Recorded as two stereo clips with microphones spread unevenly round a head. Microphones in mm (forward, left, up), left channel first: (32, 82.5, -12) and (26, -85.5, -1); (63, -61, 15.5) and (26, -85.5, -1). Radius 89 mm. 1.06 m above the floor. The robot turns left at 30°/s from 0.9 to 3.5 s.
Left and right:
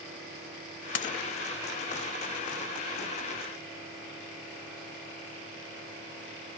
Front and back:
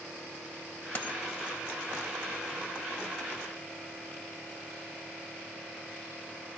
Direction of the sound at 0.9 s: 80° left.